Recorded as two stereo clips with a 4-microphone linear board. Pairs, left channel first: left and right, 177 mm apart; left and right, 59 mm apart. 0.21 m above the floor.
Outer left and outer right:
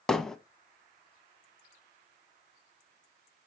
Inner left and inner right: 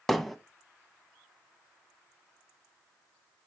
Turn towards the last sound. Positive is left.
turn(degrees=5)  # may be behind; listen again after turning